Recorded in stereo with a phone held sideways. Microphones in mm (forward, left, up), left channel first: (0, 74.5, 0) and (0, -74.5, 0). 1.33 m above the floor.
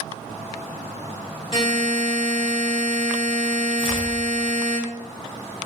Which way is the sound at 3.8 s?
35° right (ahead or behind).